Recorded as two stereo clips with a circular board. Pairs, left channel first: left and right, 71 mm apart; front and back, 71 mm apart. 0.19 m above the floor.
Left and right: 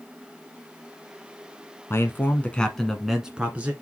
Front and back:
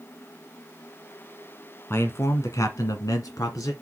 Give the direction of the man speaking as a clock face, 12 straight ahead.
10 o'clock.